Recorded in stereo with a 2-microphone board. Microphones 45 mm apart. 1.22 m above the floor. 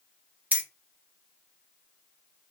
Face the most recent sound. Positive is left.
turn(degrees=-35)  # may be behind; listen again after turning